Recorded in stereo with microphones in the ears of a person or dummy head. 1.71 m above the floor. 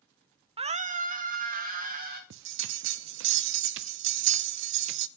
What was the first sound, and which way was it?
A scream, 30° right (ahead or behind).